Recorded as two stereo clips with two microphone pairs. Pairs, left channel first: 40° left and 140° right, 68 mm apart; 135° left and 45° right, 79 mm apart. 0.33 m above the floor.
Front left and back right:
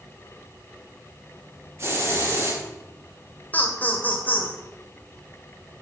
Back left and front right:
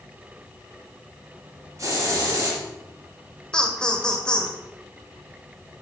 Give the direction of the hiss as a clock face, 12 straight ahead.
3 o'clock.